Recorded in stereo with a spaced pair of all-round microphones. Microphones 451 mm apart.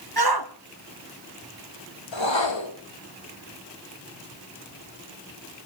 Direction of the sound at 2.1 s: 75° left (ahead or behind).